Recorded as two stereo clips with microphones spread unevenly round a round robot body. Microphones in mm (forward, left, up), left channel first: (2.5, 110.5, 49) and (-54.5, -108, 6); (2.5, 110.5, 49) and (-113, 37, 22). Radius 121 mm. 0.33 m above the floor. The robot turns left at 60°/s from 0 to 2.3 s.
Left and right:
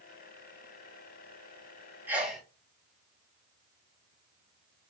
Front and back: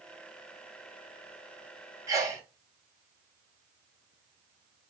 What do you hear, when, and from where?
2.1 s a sneeze: 160° right, 1.0 m; by 2.4 s 175° right, 1.0 m